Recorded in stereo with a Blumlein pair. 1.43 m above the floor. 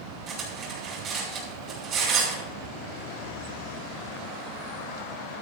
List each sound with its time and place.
0.3 s cutlery clinking: 30° right, 5.5 m